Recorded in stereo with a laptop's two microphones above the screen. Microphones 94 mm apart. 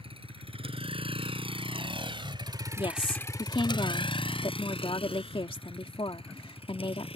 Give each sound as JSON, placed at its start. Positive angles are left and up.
{"t": 0.0, "sound": "a vehicle", "side_deg": -85}
{"t": 2.8, "sound": "a woman speaking", "side_deg": 70}